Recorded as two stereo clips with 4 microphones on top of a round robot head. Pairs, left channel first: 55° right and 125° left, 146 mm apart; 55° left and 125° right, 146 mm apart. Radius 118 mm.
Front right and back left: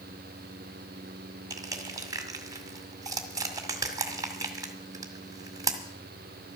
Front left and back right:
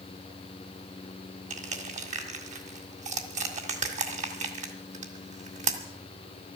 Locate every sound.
1.5 s crushing: 165° right, 1.9 m